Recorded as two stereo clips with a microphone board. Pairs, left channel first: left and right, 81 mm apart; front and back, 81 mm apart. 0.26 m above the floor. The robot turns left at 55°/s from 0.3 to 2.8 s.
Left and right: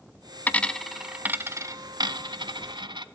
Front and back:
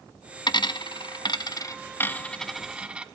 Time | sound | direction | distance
0.5 | a dropped coin | 25° left | 0.8 m